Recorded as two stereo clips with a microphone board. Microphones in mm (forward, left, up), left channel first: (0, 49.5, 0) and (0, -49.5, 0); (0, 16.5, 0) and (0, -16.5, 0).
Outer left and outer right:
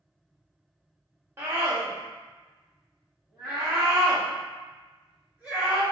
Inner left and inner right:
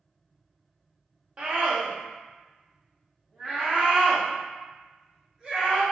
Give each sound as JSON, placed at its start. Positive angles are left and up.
{"t": 1.4, "sound": "a scream", "side_deg": -25, "distance_m": 0.9}